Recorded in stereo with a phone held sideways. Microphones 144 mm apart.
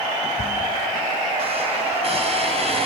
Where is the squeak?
45° right (ahead or behind), 4.5 m.